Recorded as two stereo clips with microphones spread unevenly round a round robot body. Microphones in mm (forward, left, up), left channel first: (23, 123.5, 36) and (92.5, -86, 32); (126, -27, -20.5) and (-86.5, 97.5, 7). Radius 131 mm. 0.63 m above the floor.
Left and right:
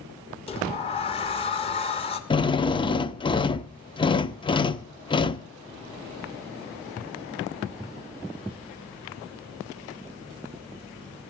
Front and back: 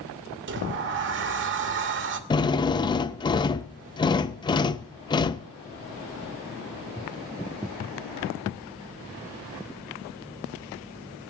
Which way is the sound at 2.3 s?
40° left.